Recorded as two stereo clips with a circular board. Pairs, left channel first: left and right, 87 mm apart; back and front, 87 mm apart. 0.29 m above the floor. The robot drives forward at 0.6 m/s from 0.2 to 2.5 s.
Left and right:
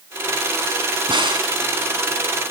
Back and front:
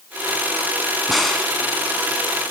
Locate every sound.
1.1 s a crack: 90° right, 1.9 m; by 1.5 s 100° right, 1.9 m